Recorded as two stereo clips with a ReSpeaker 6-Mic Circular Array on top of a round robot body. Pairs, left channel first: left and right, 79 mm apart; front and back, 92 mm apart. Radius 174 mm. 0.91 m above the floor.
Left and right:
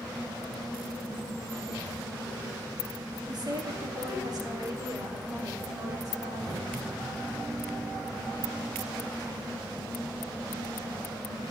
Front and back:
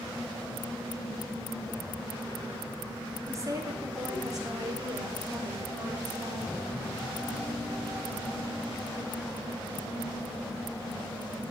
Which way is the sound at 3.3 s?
125° right.